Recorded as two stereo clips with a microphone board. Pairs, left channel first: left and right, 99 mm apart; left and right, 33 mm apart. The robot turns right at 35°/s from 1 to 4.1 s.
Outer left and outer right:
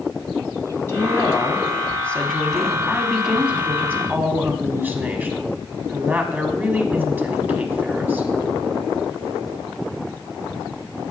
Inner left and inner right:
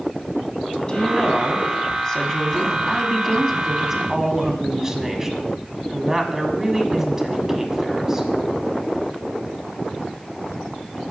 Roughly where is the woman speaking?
Left.